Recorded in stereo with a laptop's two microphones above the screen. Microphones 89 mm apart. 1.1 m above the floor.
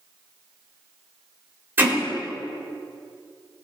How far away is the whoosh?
No whoosh in this recording.